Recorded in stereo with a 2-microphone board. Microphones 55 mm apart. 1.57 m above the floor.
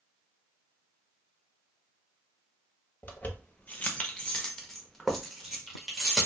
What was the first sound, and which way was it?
Keys jangling, 35° left (ahead or behind).